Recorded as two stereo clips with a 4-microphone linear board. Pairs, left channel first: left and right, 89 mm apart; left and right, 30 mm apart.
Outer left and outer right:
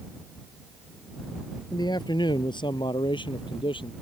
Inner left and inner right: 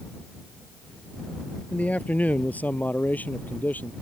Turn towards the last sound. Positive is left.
turn(degrees=65)  # may be behind; listen again after turning